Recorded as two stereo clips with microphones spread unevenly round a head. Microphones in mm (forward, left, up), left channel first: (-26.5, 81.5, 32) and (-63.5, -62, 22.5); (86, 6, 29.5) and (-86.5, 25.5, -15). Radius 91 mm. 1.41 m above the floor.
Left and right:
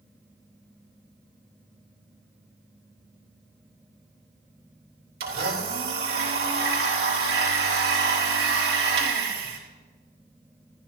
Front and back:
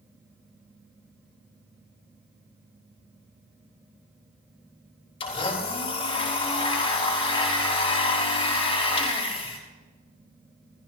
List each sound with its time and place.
5.2 s a blender: 65° right, 3.5 m